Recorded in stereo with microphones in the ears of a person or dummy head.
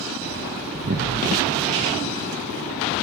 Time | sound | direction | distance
0.7 | an explosion | 45° right (ahead or behind) | 0.5 m